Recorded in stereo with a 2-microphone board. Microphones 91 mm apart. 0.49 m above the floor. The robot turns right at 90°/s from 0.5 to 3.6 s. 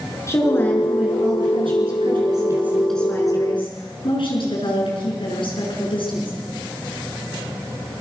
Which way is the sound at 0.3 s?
145° left.